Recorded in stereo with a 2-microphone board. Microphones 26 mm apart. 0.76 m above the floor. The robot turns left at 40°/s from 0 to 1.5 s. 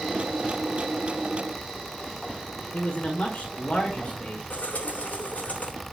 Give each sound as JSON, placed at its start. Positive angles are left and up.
{"t": 2.7, "sound": "a man speaking", "side_deg": 50, "distance_m": 2.0}
{"t": 4.5, "sound": "a bird", "side_deg": 75, "distance_m": 3.5}